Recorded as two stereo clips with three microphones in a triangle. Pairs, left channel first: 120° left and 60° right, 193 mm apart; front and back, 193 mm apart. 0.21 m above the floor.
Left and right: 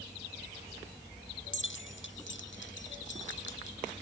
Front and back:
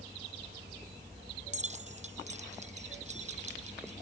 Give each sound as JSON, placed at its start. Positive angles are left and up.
{"t": 1.5, "sound": "keys jangling", "azimuth_deg": 125}